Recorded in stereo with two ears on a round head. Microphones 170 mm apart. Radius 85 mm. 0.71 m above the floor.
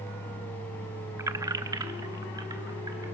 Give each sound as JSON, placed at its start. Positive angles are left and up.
{"t": 1.2, "sound": "keys jangling", "side_deg": -15, "distance_m": 0.6}